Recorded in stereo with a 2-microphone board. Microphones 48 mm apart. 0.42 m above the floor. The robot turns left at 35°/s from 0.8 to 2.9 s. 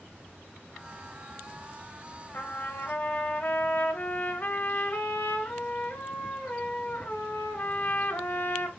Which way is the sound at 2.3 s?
45° left (ahead or behind).